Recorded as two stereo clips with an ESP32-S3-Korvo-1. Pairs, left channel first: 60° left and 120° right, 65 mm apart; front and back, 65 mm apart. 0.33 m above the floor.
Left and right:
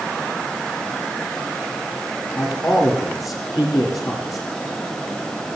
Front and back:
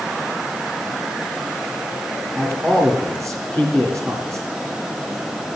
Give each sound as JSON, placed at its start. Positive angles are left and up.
{"t": 2.4, "sound": "a man speaking", "azimuth_deg": 70, "distance_m": 7.5}